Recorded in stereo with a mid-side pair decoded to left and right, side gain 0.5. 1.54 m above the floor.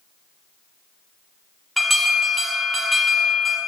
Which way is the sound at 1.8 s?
10° right.